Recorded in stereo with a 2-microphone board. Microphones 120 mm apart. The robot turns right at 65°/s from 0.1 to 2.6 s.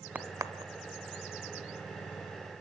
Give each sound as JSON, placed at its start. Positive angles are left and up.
{"t": 0.1, "sound": "a crack", "side_deg": -10, "distance_m": 1.0}